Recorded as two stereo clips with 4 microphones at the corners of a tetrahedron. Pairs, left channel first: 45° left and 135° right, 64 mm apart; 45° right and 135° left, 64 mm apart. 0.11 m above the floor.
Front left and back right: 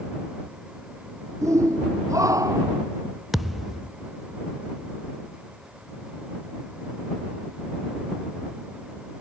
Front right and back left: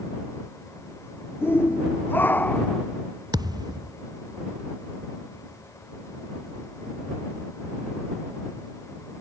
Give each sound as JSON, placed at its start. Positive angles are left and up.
{"t": 1.4, "sound": "a shout", "azimuth_deg": -95}
{"t": 3.3, "sound": "a thud", "azimuth_deg": 135}